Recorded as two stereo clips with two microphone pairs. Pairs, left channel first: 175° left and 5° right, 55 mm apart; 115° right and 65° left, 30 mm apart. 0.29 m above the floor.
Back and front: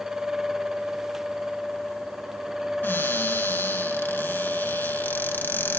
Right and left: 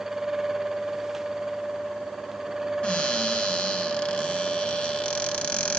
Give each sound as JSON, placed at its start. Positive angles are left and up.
{"t": 2.8, "sound": "a cupboard door", "azimuth_deg": -145, "distance_m": 1.9}